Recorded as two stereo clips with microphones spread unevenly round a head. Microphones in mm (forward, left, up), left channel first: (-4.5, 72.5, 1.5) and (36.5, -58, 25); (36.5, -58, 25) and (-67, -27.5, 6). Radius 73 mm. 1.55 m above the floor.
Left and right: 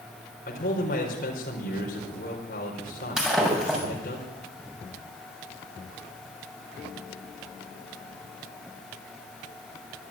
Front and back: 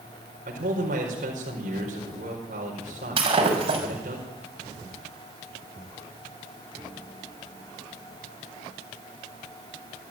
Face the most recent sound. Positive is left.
turn(degrees=-160)